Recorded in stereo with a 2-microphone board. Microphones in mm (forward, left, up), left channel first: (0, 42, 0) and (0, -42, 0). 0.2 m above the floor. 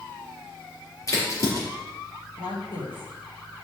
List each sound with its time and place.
1.1 s a crack: 40° left (ahead or behind), 4.5 m
2.4 s a woman speaking: 70° left (ahead or behind), 4 m